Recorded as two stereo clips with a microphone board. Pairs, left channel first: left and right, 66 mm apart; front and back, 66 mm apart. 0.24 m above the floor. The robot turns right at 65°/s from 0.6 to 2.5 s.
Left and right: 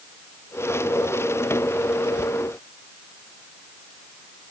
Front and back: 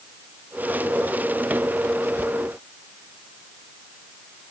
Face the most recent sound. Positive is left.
No sound to turn to.